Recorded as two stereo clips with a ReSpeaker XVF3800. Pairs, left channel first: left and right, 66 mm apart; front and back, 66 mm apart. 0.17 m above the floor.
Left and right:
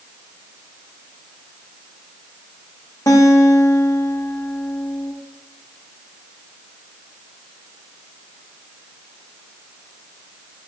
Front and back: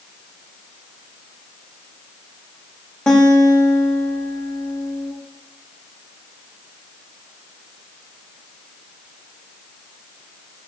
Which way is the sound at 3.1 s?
80° left.